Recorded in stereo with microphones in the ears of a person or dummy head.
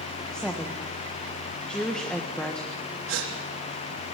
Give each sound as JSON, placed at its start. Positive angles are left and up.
{"t": 0.3, "sound": "a woman speaking", "side_deg": 5, "distance_m": 1.5}
{"t": 3.1, "sound": "a gasp", "side_deg": -80, "distance_m": 3.5}